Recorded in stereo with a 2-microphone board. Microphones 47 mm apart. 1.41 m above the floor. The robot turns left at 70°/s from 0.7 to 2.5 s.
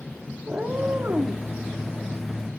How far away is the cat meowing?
About 1.2 m.